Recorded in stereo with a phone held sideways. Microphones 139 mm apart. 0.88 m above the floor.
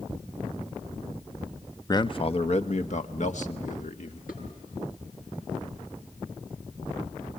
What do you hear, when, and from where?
1.9 s a man speaking: 25° left (ahead or behind), 0.7 m; by 4.2 s 60° left (ahead or behind), 2.5 m
4.3 s dishes clattering: 80° left, 8.5 m